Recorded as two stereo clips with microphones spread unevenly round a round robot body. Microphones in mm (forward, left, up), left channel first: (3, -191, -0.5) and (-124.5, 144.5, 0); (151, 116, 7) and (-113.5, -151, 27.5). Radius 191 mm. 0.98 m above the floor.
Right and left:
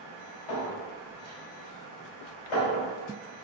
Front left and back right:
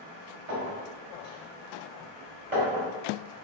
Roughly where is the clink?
Right.